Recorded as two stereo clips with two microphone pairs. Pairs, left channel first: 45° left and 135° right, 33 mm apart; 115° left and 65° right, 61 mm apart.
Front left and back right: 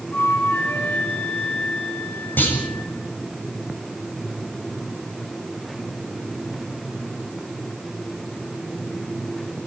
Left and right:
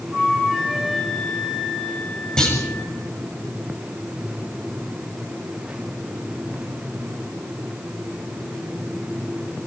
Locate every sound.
0.1 s a flute: 30° left, 5.5 m
2.4 s a clunk: 40° left, 6.5 m